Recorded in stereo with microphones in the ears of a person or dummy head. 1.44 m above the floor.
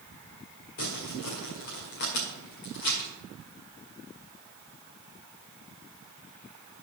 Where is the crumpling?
50° left (ahead or behind), 2.0 m.